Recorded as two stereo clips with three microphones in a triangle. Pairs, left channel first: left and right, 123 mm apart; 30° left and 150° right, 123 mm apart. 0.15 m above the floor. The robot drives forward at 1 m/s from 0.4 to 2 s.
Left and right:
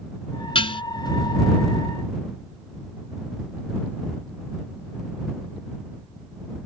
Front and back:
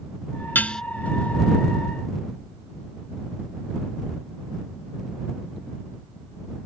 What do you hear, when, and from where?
0.6 s dishes clattering: 95° left; by 0.8 s 115° left